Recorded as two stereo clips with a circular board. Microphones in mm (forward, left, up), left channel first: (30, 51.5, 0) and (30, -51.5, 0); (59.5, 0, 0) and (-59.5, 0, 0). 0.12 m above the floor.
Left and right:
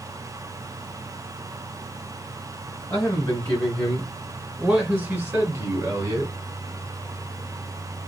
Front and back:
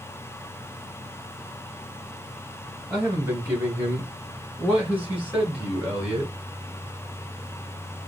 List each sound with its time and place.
2.9 s a man speaking: 120° left, 1.7 m; by 6.3 s 105° right, 2 m